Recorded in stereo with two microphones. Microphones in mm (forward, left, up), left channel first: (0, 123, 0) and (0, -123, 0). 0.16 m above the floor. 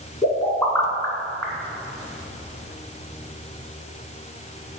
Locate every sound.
0.2 s a pop: centre (ahead or behind), 2.0 m